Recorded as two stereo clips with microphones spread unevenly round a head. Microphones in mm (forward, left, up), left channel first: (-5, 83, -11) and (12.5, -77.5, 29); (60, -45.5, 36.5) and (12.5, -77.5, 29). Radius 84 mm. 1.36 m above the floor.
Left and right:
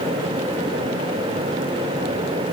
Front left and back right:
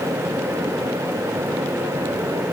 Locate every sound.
Only background noise.